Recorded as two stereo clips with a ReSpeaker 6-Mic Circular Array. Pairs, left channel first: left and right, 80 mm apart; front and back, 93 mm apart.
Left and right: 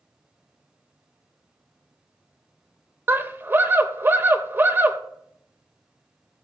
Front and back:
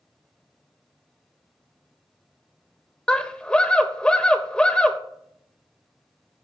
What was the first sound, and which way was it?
A scream, 70° right.